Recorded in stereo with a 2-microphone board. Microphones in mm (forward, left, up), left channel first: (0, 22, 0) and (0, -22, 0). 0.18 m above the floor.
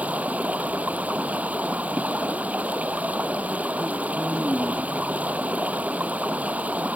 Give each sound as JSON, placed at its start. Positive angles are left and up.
{"t": 0.0, "sound": "running water", "side_deg": -35}